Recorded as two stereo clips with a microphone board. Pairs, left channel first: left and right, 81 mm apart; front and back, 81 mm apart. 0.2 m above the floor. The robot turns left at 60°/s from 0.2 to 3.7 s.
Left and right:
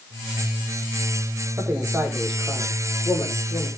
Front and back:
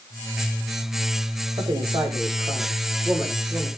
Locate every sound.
1.6 s a man speaking: 145° right, 8 m; by 3.7 s 90° left, 8 m